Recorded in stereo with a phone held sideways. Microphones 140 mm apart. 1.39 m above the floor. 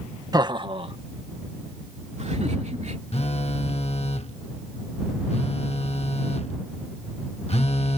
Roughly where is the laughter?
Right.